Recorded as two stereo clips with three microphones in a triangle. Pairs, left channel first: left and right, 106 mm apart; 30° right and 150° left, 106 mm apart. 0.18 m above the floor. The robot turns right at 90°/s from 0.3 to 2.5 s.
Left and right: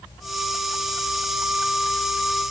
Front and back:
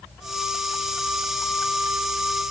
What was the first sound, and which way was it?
Only background noise.